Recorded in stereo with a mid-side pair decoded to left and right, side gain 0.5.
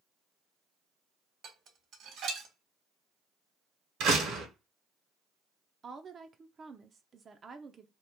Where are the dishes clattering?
65° right, 1.5 m.